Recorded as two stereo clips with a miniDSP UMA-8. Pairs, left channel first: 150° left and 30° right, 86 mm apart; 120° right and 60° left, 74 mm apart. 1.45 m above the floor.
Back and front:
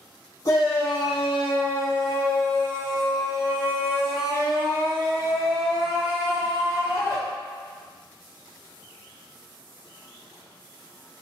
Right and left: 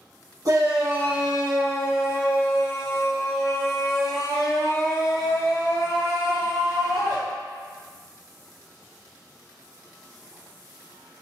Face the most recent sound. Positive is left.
turn(degrees=-160)